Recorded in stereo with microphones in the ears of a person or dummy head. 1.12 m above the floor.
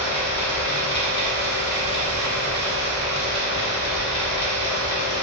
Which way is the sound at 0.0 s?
80° left.